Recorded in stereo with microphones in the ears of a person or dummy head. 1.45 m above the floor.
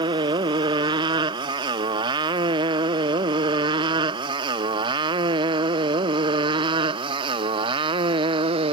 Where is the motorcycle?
25° right (ahead or behind); by 8.7 s 30° right (ahead or behind).